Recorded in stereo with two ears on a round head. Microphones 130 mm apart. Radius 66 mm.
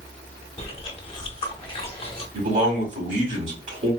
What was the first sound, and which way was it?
Chewing, 40° left (ahead or behind).